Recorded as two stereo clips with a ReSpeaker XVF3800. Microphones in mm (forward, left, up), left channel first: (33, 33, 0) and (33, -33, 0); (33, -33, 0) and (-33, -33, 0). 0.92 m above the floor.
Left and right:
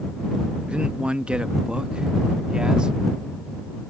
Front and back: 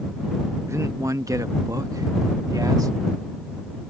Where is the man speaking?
160° right; by 3.0 s 165° right.